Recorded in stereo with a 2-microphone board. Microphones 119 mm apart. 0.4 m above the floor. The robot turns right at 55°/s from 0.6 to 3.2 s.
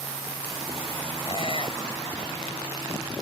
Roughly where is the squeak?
Left.